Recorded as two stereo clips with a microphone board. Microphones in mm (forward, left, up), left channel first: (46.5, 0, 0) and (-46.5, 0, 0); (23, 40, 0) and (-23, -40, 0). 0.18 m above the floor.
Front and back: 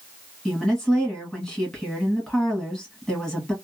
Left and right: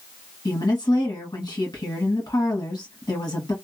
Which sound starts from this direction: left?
A woman speaking, at 0.5 s.